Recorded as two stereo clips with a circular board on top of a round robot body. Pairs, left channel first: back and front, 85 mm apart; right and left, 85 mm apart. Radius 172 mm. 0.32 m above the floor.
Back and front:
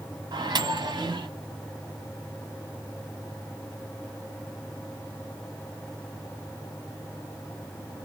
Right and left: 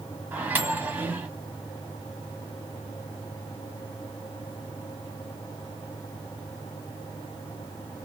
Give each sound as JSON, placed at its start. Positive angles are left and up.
{"t": 0.3, "sound": "a microwave", "azimuth_deg": 25, "distance_m": 1.6}